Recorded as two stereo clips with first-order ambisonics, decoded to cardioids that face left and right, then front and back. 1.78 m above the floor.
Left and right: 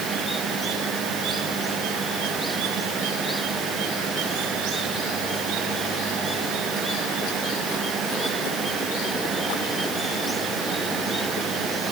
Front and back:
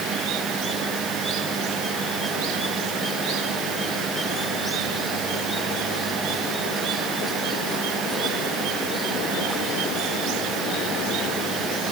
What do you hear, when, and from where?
Only background noise.